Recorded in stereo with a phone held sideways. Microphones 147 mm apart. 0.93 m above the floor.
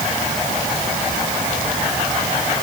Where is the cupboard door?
I don't hear a cupboard door.